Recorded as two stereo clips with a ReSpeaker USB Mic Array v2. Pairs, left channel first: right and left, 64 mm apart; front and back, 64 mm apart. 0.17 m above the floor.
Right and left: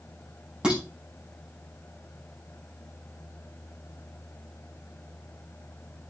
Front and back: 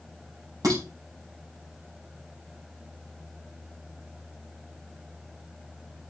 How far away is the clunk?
No clunk in this recording.